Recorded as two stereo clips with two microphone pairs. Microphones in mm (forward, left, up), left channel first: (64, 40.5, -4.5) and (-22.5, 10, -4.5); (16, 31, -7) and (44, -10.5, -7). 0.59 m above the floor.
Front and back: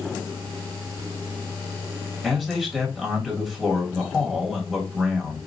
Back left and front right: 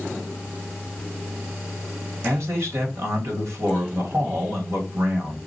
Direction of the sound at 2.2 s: 70° right.